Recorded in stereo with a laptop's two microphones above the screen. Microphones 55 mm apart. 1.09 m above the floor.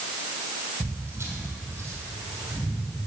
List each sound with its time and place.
0.8 s footsteps: 55° right (ahead or behind), 1.8 m; by 2.8 s 45° right (ahead or behind), 3 m